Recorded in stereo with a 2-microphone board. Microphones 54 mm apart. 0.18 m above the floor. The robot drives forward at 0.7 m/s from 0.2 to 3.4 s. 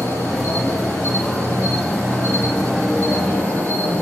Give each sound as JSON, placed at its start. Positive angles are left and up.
{"t": 0.0, "sound": "an insect", "side_deg": 75, "distance_m": 4.0}